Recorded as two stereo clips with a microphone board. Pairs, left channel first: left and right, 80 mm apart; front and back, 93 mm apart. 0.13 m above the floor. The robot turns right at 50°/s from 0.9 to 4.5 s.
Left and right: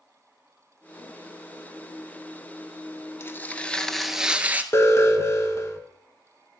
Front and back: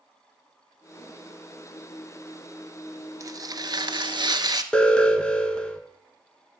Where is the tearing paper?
140° left, 0.7 m; by 4.6 s 155° right, 0.7 m.